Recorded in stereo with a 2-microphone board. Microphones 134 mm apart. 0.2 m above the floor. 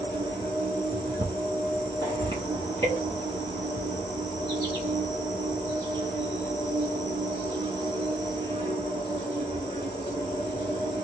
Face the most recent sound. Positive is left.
turn(degrees=-35)  # may be behind; listen again after turning